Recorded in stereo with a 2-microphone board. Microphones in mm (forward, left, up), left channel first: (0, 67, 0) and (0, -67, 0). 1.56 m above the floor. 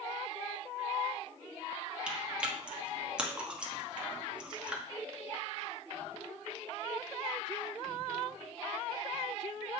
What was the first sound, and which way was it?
Chewing, 10° right (ahead or behind).